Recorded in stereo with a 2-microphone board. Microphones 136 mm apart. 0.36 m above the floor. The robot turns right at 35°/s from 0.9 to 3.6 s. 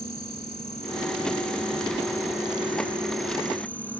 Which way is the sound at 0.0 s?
75° left.